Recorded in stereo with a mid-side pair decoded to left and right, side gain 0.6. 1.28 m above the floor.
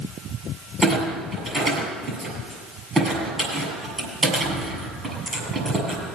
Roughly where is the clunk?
Ahead.